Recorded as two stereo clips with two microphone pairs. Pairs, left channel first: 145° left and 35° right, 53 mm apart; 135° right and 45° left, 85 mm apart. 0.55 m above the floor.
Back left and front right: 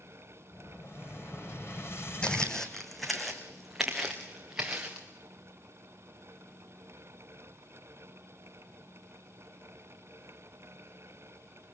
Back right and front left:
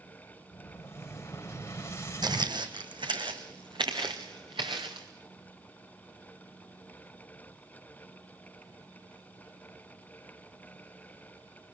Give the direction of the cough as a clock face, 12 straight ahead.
I don't hear a cough.